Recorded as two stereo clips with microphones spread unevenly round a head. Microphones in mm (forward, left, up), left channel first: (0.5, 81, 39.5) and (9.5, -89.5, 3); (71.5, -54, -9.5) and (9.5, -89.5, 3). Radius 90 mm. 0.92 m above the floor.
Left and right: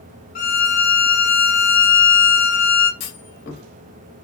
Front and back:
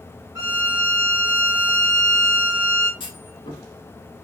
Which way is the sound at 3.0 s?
55° left.